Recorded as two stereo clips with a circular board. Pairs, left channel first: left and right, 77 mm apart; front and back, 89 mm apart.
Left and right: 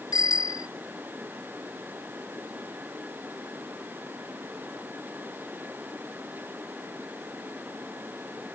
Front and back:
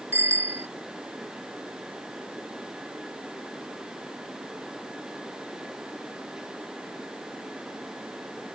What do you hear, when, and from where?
0.1 s a bicycle bell: 120° left